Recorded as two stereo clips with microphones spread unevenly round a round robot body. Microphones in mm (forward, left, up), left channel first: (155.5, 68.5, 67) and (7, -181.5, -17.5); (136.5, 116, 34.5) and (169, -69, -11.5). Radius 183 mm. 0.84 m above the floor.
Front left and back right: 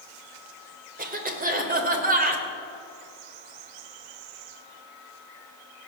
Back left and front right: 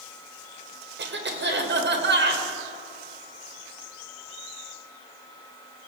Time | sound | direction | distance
1.0 | a cough | 60° right | 3 m